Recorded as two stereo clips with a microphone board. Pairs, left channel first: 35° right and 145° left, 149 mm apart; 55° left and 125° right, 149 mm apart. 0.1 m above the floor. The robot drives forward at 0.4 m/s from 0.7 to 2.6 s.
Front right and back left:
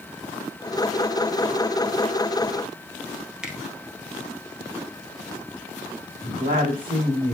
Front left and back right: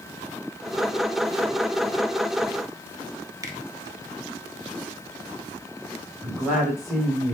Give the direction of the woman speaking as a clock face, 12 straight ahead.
7 o'clock.